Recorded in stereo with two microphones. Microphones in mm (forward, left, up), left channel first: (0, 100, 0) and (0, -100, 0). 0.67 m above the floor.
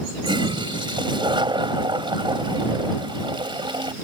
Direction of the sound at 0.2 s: 25° right (ahead or behind).